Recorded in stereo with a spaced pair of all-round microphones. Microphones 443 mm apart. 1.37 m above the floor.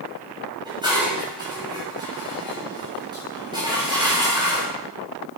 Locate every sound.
0.7 s dishes clattering: 10° right (ahead or behind), 6 m